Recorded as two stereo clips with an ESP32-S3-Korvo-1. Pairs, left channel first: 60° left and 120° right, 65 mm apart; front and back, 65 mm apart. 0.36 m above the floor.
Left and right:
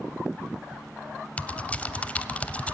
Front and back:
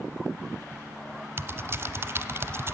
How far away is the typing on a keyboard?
About 0.6 m.